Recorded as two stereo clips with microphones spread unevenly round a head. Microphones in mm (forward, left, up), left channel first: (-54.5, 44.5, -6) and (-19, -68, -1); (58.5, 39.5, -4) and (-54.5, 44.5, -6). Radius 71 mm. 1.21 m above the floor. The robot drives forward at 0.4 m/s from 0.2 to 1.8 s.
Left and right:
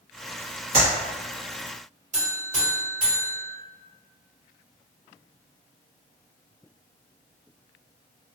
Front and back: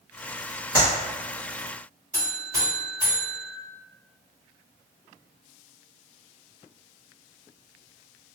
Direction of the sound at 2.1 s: 120° right.